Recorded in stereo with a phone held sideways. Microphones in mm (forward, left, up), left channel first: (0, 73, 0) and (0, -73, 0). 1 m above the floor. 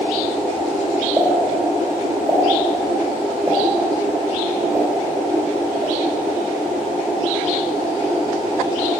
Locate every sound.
1.2 s a pop: centre (ahead or behind), 3.5 m